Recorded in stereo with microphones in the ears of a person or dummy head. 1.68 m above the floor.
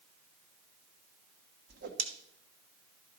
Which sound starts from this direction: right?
A whoosh, at 1.7 s.